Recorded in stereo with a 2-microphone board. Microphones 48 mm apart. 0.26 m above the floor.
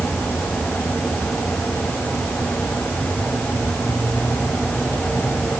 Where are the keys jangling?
I don't hear keys jangling.